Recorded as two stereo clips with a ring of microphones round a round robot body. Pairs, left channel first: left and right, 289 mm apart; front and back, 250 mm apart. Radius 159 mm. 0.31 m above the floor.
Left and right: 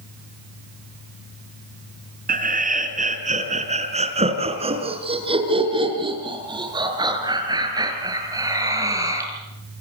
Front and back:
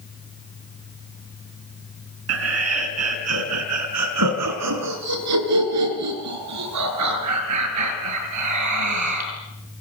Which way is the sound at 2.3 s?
150° right.